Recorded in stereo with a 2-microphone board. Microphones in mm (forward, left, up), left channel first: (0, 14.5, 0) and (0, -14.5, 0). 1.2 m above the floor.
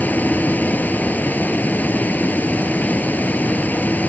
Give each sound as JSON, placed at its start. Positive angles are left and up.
{"t": 0.0, "sound": "running water", "side_deg": 75}